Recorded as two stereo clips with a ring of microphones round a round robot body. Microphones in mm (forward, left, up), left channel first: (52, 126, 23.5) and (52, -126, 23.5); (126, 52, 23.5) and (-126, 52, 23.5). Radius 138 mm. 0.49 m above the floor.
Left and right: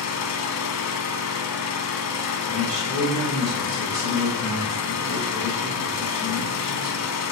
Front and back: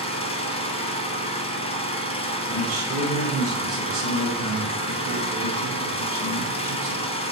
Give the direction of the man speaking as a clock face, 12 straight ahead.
5 o'clock.